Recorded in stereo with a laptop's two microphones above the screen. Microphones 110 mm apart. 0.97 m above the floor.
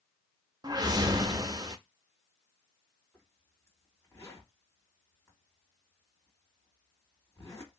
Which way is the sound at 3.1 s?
25° left (ahead or behind).